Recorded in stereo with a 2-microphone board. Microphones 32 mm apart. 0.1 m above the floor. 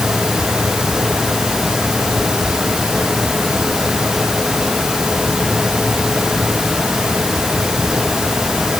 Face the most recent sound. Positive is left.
No sound to turn to.